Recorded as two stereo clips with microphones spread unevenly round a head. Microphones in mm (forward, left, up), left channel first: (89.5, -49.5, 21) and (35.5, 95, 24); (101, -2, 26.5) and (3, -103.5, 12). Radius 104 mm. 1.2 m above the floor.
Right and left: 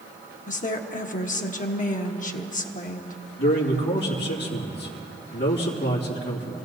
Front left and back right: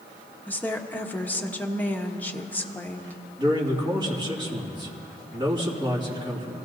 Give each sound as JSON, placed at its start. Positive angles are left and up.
{"t": 0.5, "sound": "a woman speaking", "azimuth_deg": -35, "distance_m": 1.2}
{"t": 3.4, "sound": "a man speaking", "azimuth_deg": -75, "distance_m": 2.5}